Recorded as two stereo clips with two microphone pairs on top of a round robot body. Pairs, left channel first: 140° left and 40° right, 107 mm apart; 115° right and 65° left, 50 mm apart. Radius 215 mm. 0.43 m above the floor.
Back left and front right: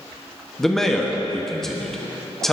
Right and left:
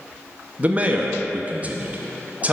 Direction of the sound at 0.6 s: 60° left.